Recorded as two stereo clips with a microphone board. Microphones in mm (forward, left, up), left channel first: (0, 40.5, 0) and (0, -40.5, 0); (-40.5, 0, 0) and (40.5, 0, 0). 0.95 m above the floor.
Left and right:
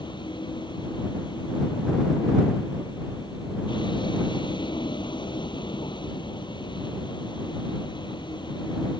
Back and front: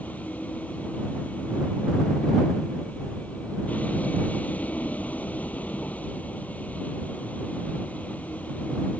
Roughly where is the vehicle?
Left.